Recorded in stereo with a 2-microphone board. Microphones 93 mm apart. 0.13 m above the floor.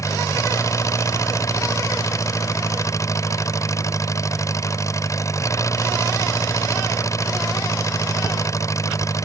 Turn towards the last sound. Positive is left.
turn(degrees=35)  # may be behind; listen again after turning